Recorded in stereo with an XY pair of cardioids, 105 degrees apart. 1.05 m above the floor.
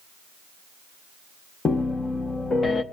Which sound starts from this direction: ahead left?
A piano, at 1.6 s.